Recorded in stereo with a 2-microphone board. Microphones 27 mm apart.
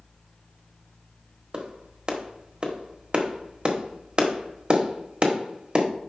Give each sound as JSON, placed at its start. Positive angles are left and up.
{"t": 1.5, "sound": "a clap", "side_deg": -35, "distance_m": 1.2}